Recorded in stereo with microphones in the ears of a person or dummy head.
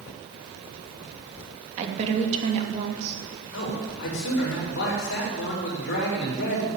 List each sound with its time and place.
1.8 s a woman speaking: 40° right (ahead or behind), 2.5 m
3.5 s a man speaking: 70° left (ahead or behind), 4.5 m